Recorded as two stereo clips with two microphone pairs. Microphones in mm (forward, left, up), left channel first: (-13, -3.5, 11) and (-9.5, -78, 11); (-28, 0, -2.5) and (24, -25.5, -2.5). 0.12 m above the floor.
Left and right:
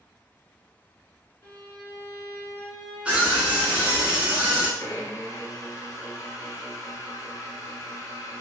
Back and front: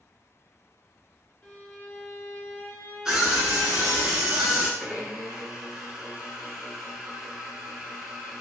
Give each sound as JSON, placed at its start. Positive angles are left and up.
{"t": 1.4, "sound": "a violin", "azimuth_deg": 105, "distance_m": 1.3}
{"t": 3.0, "sound": "a scream", "azimuth_deg": -70, "distance_m": 1.0}
{"t": 4.8, "sound": "a blender", "azimuth_deg": 50, "distance_m": 0.6}